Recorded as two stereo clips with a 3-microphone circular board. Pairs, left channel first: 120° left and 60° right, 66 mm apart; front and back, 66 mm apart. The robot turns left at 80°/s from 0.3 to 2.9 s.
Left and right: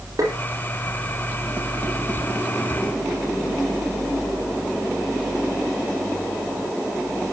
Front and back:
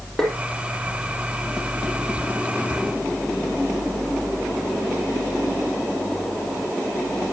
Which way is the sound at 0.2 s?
80° right.